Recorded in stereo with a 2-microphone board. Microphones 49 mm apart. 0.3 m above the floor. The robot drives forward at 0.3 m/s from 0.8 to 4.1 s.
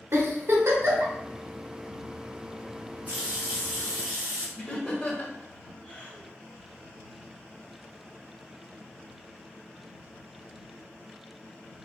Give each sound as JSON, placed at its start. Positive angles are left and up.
{"t": 0.1, "sound": "a giggle", "side_deg": -60, "distance_m": 1.1}
{"t": 3.1, "sound": "a running tap", "side_deg": -25, "distance_m": 1.0}
{"t": 4.6, "sound": "laughter", "side_deg": 20, "distance_m": 0.9}